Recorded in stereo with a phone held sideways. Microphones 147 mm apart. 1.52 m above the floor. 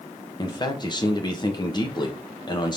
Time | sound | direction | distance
0.4 | a man speaking | 30° left (ahead or behind) | 1.3 m